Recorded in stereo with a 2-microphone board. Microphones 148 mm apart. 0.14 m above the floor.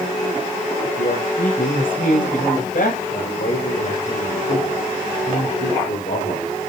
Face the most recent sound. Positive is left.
turn(degrees=75)  # may be behind; listen again after turning